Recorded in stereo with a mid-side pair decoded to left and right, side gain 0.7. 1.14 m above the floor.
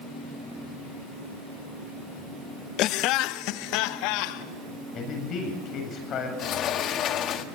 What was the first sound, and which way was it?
Laughter, 55° left.